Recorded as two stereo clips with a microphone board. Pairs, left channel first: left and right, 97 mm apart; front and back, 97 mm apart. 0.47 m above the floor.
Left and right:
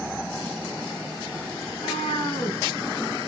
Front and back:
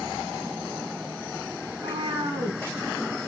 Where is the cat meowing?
130° left, 3.5 m.